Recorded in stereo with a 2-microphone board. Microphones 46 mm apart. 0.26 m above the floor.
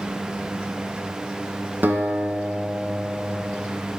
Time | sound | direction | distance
1.8 | a guitar | 45° right (ahead or behind) | 1.1 m